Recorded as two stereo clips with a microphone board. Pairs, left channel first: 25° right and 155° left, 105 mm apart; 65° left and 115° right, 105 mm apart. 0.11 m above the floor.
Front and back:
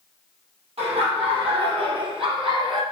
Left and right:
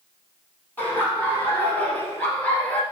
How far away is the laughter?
About 4 m.